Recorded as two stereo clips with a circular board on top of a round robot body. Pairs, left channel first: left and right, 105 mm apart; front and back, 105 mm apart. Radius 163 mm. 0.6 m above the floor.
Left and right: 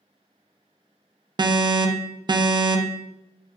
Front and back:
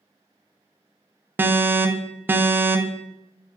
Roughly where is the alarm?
Behind right.